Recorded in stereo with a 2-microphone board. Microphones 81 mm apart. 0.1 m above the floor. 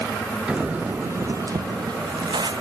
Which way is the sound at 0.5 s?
10° right (ahead or behind).